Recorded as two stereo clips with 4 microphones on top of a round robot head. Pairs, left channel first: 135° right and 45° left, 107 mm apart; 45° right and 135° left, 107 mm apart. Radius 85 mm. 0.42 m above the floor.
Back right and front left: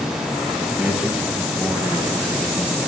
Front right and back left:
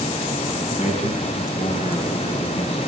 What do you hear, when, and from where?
0.8 s a man speaking: 30° right, 5 m; by 2.9 s 25° right, 3 m